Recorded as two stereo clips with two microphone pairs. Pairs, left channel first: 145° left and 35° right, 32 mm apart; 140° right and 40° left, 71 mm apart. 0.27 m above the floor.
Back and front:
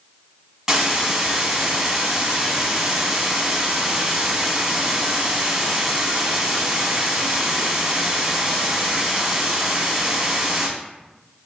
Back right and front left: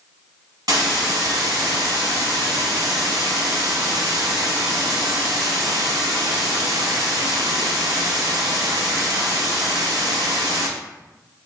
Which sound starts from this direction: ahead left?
A hiss, at 0.7 s.